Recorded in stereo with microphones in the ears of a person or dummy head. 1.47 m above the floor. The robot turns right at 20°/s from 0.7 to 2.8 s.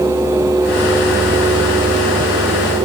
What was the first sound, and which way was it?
Only background noise.